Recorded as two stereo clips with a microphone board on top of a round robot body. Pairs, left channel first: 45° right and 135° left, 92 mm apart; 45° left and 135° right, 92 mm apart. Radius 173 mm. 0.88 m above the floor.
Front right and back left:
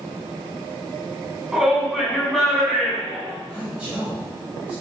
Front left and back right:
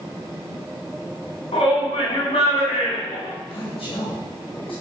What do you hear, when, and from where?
1.5 s a shout: 50° left, 7.5 m; by 3.3 s 35° left, 7 m
3.5 s a man speaking: 55° left, 5 m